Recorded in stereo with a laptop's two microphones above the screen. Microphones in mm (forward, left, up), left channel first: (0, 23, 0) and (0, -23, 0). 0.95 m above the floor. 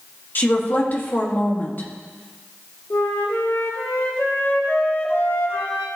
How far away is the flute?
About 2.5 m.